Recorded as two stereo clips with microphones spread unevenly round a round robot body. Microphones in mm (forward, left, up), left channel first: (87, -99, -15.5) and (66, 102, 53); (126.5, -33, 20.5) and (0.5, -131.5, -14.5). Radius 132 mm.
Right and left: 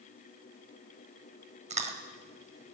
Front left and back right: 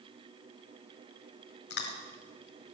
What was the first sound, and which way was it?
Chewing, 40° left.